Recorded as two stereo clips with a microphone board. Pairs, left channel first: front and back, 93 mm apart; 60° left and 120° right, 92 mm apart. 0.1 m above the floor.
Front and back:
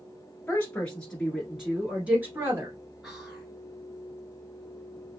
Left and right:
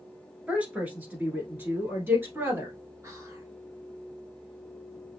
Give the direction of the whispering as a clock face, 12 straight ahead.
3 o'clock.